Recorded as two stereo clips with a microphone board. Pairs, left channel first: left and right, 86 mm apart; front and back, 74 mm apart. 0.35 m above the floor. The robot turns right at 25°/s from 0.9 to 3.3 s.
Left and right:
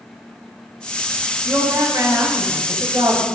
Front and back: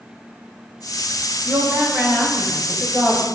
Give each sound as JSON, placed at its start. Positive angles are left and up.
{"t": 1.4, "sound": "a woman speaking", "azimuth_deg": -155, "distance_m": 2.0}